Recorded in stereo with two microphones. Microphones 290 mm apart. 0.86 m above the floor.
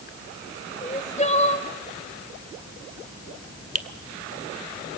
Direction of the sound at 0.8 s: 25° left (ahead or behind).